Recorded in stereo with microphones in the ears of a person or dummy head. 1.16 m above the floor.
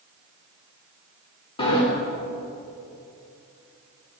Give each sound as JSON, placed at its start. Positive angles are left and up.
{"t": 1.6, "sound": "a sliding door", "side_deg": 30, "distance_m": 2.5}